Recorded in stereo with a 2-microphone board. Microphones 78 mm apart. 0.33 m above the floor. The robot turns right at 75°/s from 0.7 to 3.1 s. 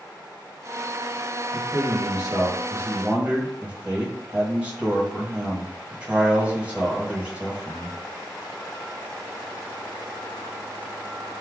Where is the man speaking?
135° right, 1.7 m; by 8.0 s 20° right, 1.7 m.